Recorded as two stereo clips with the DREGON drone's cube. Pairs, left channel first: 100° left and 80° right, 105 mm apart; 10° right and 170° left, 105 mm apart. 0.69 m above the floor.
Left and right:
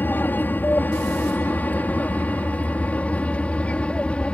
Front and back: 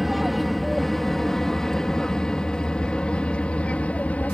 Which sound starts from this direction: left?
An aircraft, at 0.0 s.